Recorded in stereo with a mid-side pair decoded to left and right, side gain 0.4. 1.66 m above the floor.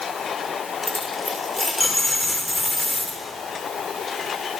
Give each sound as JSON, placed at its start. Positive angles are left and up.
{"t": 0.8, "sound": "a dropped coin", "azimuth_deg": 15, "distance_m": 3.0}